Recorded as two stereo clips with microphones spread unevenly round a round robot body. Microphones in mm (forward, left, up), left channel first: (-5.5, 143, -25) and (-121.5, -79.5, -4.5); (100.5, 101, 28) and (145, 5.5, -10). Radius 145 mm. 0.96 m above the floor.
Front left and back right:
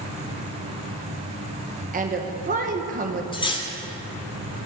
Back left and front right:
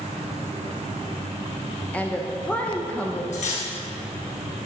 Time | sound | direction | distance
1.9 | a woman speaking | 135° right | 0.8 m
3.3 | cutlery clinking | 135° left | 1.9 m